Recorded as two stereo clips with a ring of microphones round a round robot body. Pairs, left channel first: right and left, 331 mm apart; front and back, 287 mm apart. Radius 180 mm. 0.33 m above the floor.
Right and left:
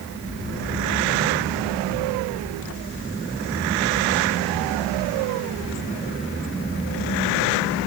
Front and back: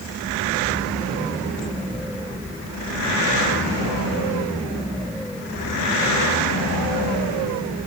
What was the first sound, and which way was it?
Only background noise.